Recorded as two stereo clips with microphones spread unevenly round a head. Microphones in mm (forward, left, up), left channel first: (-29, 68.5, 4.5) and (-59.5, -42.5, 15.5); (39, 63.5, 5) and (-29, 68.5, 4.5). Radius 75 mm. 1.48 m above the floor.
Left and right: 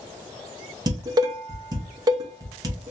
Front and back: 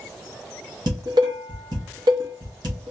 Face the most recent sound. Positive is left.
turn(degrees=-155)